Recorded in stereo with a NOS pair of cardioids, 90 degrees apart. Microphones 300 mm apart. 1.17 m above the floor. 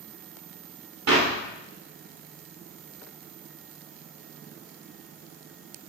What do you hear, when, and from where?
1.1 s a clap: 55° right, 3.5 m